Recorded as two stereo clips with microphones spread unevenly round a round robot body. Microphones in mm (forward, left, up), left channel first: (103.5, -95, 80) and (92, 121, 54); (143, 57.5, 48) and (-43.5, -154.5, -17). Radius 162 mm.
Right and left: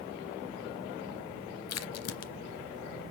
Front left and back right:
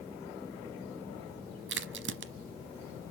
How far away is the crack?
About 0.9 m.